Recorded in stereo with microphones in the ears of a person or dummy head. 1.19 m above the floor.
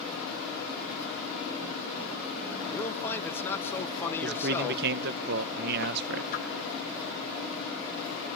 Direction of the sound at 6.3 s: 50° left (ahead or behind).